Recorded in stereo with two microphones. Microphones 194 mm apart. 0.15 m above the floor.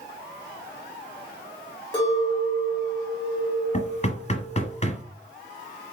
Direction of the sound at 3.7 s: 35° left (ahead or behind).